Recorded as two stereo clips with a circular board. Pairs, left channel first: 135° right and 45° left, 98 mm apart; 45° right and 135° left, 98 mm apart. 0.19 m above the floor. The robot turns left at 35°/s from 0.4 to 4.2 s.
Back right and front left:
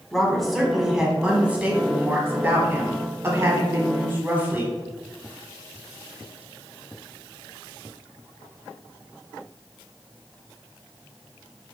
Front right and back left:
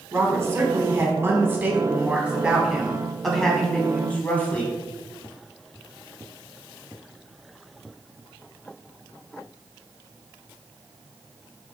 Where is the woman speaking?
140° left, 1.0 m; by 4.8 s 5° left, 1.0 m.